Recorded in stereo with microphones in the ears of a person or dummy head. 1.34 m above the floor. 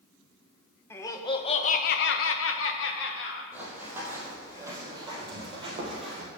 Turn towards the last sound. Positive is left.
turn(degrees=-40)  # may be behind; listen again after turning